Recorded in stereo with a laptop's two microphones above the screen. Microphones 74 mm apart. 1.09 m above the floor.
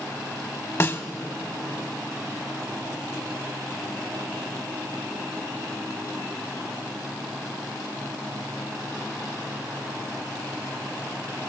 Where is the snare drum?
40° left (ahead or behind), 1.2 m.